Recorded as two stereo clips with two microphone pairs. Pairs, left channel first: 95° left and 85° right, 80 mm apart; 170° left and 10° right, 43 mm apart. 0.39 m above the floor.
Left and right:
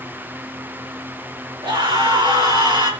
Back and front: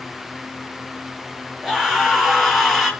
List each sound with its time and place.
1.6 s a scream: 90° right, 7 m; by 2.9 s 95° right, 6.5 m